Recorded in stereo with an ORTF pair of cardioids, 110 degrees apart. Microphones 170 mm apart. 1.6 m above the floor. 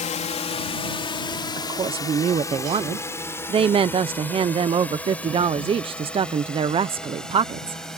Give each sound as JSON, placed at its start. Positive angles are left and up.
{"t": 0.0, "sound": "a drone", "azimuth_deg": 45}
{"t": 1.6, "sound": "a woman speaking", "azimuth_deg": -35}